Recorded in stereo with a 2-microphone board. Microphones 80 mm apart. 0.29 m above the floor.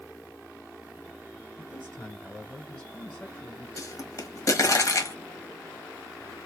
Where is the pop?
45° left (ahead or behind), 1.3 m.